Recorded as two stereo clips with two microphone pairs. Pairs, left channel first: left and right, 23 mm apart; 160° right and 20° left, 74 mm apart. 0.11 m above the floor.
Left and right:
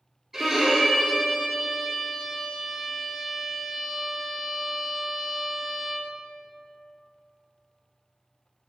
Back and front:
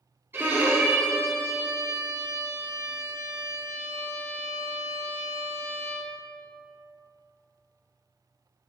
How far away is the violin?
About 1.9 m.